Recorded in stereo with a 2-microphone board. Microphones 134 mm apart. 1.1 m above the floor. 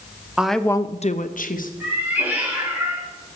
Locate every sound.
0.4 s a woman speaking: 5° right (ahead or behind), 0.9 m; by 1.7 s 85° left, 1.2 m
1.8 s a cat meowing: 15° right (ahead or behind), 6 m